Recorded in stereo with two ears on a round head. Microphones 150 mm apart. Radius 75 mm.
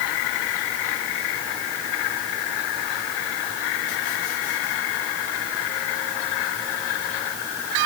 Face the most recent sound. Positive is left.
No sound to turn to.